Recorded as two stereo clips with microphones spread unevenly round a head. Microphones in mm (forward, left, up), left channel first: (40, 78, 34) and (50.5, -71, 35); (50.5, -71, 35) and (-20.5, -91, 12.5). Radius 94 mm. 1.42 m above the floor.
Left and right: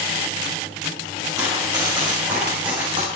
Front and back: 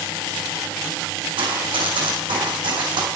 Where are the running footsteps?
160° right, 5 m; by 3.1 s 150° right, 5 m.